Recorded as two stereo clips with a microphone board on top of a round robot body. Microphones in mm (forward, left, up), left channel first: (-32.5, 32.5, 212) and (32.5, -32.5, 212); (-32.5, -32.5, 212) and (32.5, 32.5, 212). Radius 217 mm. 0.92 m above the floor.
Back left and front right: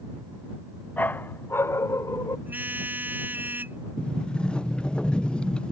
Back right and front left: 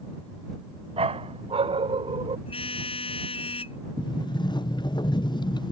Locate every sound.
1.0 s a dog barking: 60° left; by 2.4 s 75° left
2.5 s a car horn: 115° right
4.0 s a sliding door: 150° right